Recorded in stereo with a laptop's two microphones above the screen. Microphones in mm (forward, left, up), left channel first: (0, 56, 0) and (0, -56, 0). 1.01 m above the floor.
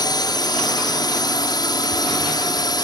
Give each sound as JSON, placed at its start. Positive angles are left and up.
{"t": 0.0, "sound": "a drone", "side_deg": 40}